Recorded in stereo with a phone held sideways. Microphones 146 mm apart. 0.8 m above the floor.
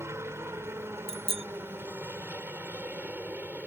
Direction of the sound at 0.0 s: 20° right (ahead or behind).